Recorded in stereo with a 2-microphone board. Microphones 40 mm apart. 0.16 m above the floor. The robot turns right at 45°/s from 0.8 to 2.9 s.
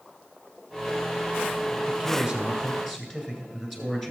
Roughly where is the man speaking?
Ahead right.